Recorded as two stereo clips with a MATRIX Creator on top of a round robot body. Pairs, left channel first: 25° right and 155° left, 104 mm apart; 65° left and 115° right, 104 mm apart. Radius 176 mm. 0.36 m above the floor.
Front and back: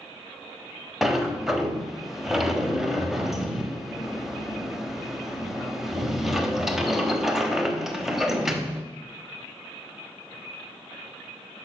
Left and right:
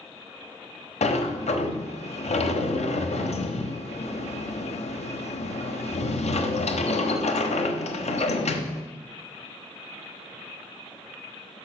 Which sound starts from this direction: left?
A sliding door, at 1.0 s.